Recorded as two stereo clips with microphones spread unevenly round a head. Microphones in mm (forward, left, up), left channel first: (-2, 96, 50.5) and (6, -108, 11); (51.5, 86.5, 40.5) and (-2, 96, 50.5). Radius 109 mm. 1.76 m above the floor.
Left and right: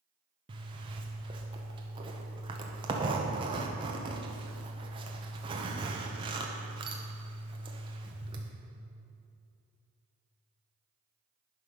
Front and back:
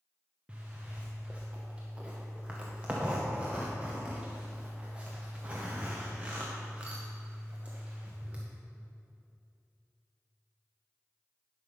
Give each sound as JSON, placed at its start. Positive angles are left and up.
{"t": 0.5, "sound": "a zipper", "azimuth_deg": -155, "distance_m": 0.8}